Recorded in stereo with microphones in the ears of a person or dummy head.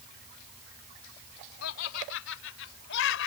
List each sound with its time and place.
1.6 s laughter: 75° left (ahead or behind); by 3.3 s 70° left (ahead or behind)